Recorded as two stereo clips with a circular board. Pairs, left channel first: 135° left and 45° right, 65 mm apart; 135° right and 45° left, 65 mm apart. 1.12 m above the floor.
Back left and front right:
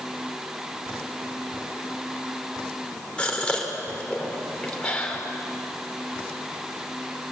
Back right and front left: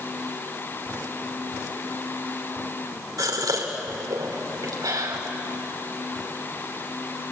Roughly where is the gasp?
Ahead left.